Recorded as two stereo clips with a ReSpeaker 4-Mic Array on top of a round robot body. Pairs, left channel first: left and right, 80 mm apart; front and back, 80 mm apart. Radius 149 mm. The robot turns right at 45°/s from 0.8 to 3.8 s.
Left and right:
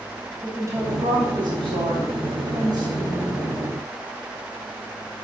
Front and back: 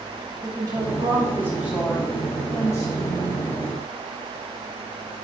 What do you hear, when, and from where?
0.4 s a woman speaking: 140° right, 3 m; by 3.5 s 20° right, 3 m